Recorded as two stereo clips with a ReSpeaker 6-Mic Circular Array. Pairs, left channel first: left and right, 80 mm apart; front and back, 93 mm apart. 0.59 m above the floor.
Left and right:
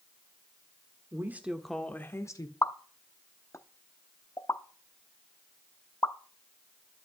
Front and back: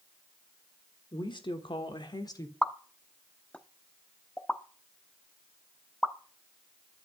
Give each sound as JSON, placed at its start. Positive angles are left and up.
{"t": 1.1, "sound": "a woman speaking", "azimuth_deg": -35, "distance_m": 1.7}
{"t": 2.6, "sound": "a pop", "azimuth_deg": 70, "distance_m": 0.8}